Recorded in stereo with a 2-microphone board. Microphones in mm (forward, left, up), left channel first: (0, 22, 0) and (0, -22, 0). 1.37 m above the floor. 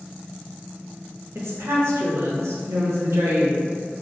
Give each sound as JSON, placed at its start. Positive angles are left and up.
{"t": 1.4, "sound": "a woman speaking", "side_deg": -80, "distance_m": 0.7}